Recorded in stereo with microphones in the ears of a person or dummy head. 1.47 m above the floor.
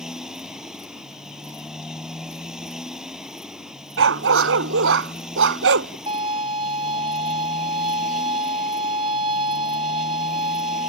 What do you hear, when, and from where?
0.0 s a motorcycle: 5° right (ahead or behind)
4.0 s a dog barking: 80° right
6.1 s a violin: 30° right (ahead or behind)